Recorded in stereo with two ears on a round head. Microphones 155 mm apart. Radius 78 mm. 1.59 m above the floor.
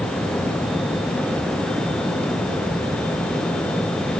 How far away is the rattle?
I don't hear a rattle.